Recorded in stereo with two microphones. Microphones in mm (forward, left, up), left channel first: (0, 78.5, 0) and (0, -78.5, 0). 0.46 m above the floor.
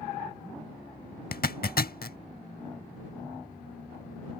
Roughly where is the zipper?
Left.